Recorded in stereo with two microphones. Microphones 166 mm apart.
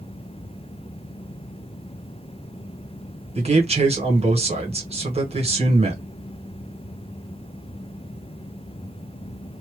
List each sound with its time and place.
3.4 s a man speaking: 40° right (ahead or behind), 1.2 m